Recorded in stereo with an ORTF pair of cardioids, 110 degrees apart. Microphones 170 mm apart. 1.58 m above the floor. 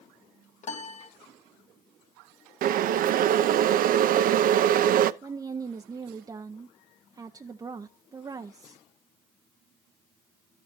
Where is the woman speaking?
20° right, 0.9 m.